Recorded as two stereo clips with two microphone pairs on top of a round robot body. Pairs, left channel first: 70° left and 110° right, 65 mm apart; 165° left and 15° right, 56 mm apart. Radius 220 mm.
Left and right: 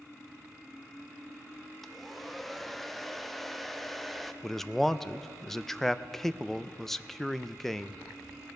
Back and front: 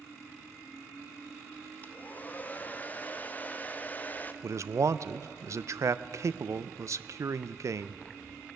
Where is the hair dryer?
170° left, 1.0 m.